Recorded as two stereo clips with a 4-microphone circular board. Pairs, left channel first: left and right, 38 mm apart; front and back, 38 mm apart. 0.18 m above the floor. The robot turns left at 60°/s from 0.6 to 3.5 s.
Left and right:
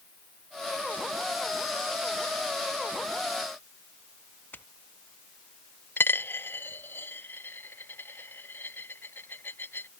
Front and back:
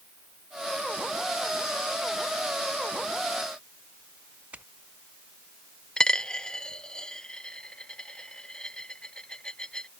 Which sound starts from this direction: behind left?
Footsteps, at 4.5 s.